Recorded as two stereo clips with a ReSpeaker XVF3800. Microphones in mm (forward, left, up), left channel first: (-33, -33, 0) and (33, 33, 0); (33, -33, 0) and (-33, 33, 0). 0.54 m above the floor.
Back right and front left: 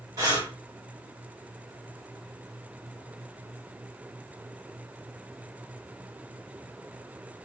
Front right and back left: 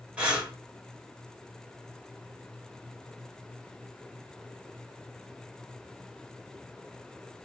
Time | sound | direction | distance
0.2 | breathing | 65° left | 1.5 m